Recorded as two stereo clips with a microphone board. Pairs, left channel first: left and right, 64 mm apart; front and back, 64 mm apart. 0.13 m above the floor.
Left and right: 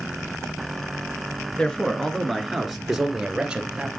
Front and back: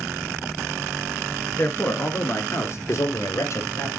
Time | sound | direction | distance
1.6 | a man speaking | 25° left | 1.4 m